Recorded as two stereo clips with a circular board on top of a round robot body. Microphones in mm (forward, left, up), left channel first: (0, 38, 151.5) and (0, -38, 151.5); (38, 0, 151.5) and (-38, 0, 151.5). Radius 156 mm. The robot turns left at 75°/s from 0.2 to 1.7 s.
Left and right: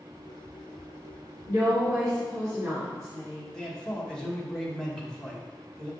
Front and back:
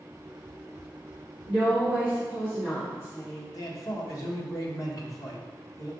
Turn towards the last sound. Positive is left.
turn(degrees=10)